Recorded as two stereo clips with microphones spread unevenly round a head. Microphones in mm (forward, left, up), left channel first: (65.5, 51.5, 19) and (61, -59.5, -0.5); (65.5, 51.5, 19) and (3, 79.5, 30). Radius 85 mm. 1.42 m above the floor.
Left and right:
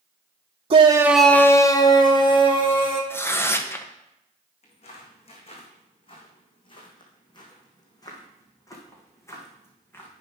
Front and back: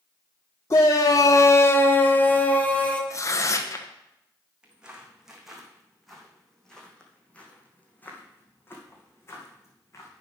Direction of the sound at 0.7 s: 70° right.